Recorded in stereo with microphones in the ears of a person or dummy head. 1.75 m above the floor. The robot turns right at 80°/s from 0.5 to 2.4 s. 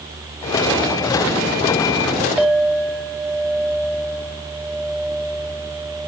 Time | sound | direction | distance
2.4 | a clink | 5° right (ahead or behind) | 0.6 m